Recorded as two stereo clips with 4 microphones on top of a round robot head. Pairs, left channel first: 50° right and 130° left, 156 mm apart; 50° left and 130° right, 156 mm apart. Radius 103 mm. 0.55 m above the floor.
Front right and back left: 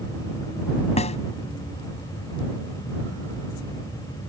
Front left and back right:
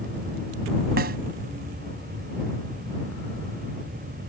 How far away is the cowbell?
I don't hear a cowbell.